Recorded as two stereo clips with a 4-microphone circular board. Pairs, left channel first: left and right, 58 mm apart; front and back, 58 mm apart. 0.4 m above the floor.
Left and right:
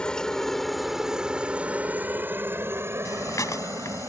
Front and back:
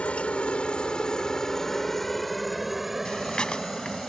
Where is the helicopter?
35° left; by 4.1 s 100° right.